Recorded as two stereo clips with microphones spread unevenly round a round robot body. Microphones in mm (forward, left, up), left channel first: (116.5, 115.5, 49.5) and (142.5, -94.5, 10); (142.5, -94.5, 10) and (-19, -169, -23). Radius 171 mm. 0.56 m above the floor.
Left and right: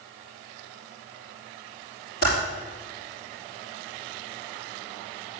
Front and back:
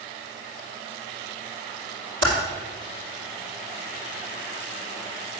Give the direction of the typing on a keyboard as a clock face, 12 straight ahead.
7 o'clock.